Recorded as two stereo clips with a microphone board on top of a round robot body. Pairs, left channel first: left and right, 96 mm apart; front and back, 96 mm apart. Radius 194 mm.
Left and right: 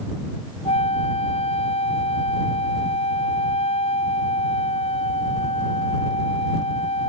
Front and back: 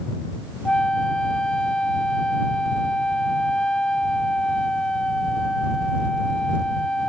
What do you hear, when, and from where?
0.7 s a flute: 80° left